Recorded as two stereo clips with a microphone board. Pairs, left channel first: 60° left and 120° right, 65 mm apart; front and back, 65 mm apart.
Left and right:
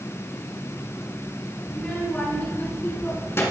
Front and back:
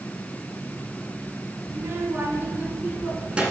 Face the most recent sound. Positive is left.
turn(degrees=105)